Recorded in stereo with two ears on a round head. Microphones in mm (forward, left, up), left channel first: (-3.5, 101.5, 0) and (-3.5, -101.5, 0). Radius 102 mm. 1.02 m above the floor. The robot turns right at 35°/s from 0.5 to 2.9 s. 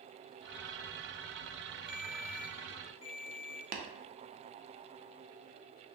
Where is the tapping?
35° right (ahead or behind), 0.5 m.